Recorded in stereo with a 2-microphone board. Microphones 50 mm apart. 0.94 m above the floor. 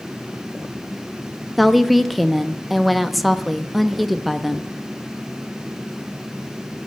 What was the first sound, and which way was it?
A woman speaking, centre (ahead or behind).